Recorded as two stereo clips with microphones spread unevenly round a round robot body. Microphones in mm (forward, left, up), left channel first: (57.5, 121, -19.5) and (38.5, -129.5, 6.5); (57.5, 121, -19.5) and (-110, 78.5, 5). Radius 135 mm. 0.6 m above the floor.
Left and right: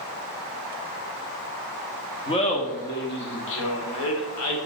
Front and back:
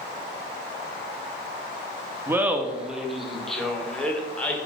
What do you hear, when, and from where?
2.3 s laughter: 115° left, 1.0 m; by 4.6 s 95° left, 2 m